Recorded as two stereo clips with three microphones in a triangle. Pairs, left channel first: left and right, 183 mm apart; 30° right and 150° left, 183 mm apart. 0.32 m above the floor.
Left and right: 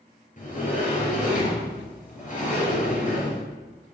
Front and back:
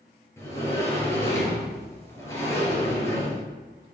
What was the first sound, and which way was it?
A sliding door, 45° left.